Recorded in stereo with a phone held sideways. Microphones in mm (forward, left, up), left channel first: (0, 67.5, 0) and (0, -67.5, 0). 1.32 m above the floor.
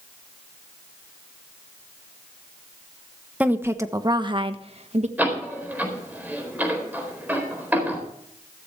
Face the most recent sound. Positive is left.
turn(degrees=-10)  # may be behind; listen again after turning